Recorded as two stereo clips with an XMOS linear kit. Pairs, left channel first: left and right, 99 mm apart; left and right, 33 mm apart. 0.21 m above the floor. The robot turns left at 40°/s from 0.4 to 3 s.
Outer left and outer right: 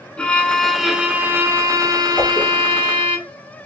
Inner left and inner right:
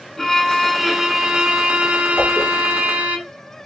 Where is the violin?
10° left, 1.1 m; by 3.2 s 90° right, 1.1 m.